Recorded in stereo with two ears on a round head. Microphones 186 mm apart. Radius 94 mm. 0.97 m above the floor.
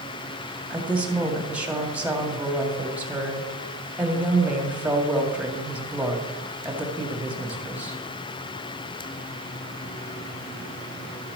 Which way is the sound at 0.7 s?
5° right (ahead or behind).